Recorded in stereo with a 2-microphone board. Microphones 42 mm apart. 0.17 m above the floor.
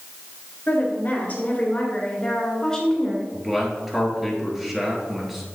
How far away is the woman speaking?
About 3 m.